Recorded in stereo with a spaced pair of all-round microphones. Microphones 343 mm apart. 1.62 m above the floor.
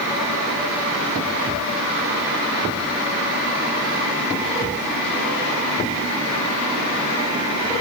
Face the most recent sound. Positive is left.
No sound to turn to.